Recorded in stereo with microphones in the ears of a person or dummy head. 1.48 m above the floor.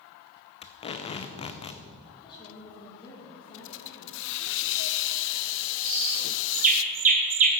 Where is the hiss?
65° left (ahead or behind), 0.5 m.